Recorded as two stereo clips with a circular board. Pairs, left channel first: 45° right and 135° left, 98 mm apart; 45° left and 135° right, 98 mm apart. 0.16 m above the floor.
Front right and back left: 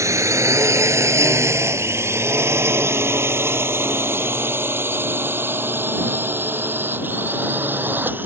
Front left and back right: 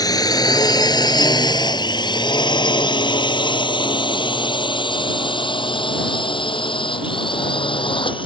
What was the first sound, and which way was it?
A drone, 85° left.